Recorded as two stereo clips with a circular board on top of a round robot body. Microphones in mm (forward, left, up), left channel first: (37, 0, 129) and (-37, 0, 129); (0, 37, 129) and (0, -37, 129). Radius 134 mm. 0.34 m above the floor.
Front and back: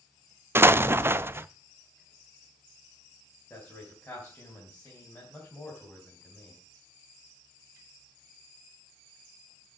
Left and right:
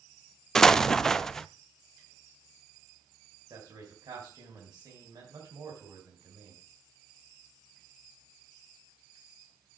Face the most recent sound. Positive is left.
turn(degrees=-60)